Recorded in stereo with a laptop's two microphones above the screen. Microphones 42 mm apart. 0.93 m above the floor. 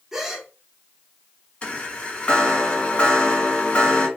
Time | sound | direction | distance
0.1 | a gasp | 10° right (ahead or behind) | 0.7 m
1.6 | a chime | 30° left (ahead or behind) | 1.6 m